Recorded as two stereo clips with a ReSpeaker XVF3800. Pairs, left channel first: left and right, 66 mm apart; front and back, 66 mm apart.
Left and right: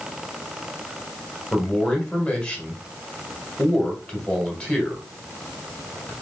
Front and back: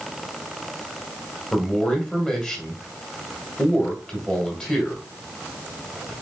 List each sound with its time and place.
1.5 s a man speaking: 50° left, 1.5 m